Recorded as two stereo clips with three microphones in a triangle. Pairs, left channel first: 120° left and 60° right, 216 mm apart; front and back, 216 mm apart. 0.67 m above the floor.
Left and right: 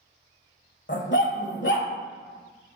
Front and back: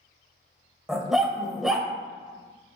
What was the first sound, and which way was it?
A dog barking, 90° left.